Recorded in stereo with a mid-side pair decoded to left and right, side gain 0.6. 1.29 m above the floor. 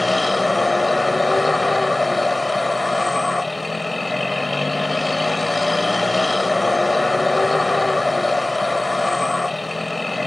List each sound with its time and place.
0.0 s a vehicle: 10° left